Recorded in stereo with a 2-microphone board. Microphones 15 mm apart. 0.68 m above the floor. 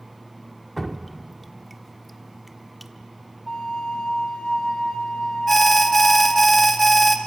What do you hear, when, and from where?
0.8 s dripping: centre (ahead or behind), 1.2 m
3.5 s a flute: 65° left (ahead or behind), 2 m
5.5 s an alarm: 5° left (ahead or behind), 1.8 m